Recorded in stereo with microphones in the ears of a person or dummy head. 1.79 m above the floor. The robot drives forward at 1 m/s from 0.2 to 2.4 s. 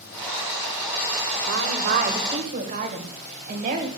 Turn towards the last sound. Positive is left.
turn(degrees=-35)  # may be behind; listen again after turning